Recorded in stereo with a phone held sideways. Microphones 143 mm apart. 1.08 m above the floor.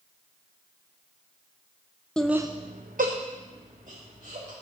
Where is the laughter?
5° left (ahead or behind), 0.6 m; by 4.5 s 55° right (ahead or behind), 2.5 m.